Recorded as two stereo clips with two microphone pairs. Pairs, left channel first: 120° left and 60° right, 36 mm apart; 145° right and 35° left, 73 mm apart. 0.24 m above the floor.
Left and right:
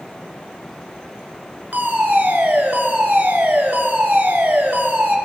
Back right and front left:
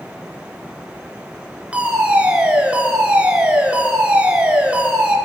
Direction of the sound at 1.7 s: 35° right.